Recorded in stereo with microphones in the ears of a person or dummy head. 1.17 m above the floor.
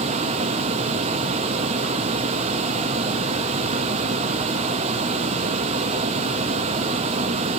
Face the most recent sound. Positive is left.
turn(degrees=-35)  # may be behind; listen again after turning